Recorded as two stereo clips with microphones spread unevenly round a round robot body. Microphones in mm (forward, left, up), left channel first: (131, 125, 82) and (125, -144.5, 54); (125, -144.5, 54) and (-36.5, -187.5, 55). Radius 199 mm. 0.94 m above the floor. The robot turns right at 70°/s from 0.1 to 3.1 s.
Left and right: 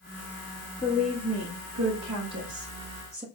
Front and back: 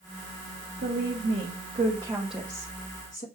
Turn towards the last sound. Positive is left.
turn(degrees=-25)